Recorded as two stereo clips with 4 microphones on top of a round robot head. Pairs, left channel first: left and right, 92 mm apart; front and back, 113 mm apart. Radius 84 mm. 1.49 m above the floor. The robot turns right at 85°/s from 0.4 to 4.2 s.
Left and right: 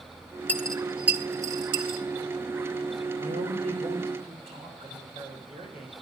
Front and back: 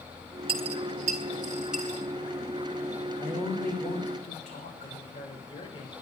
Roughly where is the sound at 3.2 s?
Behind right.